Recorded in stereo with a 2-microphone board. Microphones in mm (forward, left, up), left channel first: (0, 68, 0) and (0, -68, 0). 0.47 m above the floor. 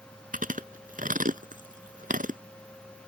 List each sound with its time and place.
0.3 s chewing: 80° right